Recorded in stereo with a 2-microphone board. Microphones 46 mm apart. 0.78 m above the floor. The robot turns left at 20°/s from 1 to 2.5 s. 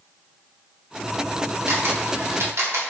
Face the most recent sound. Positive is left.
turn(degrees=-80)